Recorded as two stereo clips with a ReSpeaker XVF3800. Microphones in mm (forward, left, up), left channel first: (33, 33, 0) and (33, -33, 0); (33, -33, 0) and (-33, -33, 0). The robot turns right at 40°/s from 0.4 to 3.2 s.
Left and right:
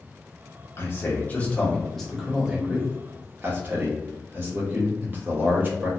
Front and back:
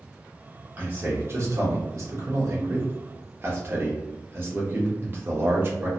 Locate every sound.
0.8 s a man speaking: 125° left, 0.8 m; by 5.9 s 135° right, 0.8 m